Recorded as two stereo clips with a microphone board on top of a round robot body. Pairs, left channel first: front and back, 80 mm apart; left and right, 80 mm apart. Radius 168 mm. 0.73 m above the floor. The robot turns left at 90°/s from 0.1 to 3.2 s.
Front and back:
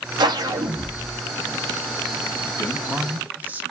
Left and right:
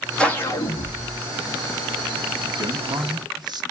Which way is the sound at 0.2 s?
170° left.